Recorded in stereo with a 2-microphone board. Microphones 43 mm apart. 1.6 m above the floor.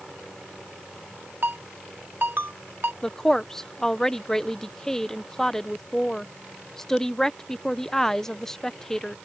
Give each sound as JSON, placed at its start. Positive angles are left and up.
{"t": 1.4, "sound": "a ringtone", "side_deg": -55}
{"t": 3.0, "sound": "a woman speaking", "side_deg": 15}